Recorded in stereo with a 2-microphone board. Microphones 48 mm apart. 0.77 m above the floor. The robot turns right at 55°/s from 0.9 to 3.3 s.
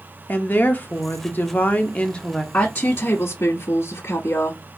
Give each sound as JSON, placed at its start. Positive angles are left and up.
{"t": 0.3, "sound": "a woman speaking", "azimuth_deg": 80, "distance_m": 0.7}
{"t": 2.5, "sound": "a woman speaking", "azimuth_deg": 35, "distance_m": 1.1}